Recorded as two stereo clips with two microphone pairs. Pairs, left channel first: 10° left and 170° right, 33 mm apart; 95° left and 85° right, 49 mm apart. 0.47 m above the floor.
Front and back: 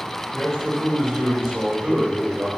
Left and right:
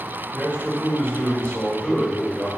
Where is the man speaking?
105° left, 1.7 m; by 2.5 s 155° left, 1.8 m.